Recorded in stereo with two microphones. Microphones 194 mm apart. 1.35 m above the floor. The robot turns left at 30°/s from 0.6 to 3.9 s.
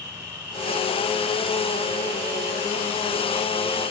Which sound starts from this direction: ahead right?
An insect, at 0.0 s.